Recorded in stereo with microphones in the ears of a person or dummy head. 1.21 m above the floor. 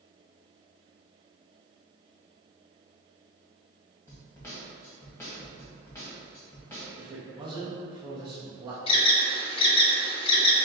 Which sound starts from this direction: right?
A man speaking, at 7.0 s.